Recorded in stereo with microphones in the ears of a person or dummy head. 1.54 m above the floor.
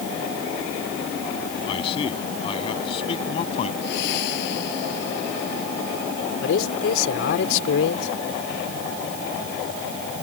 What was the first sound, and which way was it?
A man speaking, 35° left (ahead or behind).